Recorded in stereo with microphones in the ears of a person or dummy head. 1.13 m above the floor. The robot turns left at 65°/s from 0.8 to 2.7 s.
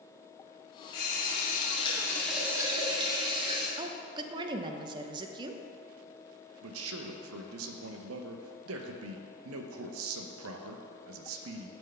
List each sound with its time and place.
0.9 s a running tap: 90° left, 1.9 m; by 3.7 s 25° right, 1.9 m
3.8 s a woman speaking: 25° right (ahead or behind), 0.6 m
6.6 s a man speaking: 75° right (ahead or behind), 0.8 m